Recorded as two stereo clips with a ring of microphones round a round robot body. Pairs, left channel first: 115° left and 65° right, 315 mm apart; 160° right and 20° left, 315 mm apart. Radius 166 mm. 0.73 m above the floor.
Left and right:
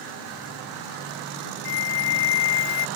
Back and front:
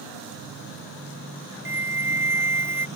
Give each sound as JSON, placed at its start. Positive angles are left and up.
{"t": 1.6, "sound": "a flute", "azimuth_deg": 105}